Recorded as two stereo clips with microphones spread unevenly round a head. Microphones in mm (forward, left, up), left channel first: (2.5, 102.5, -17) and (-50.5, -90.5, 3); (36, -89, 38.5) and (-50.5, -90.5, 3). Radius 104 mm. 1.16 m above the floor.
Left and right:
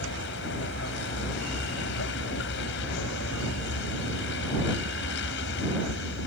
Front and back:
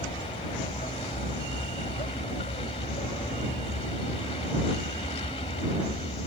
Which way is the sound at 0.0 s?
35° left.